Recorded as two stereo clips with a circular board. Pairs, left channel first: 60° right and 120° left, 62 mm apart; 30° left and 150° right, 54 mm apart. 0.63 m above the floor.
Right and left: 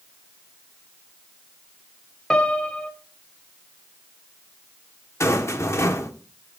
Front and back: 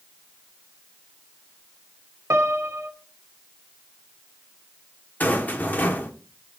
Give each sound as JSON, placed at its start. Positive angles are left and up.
{"t": 2.3, "sound": "a piano", "azimuth_deg": -140, "distance_m": 1.0}
{"t": 5.2, "sound": "a rattle", "azimuth_deg": -25, "distance_m": 1.2}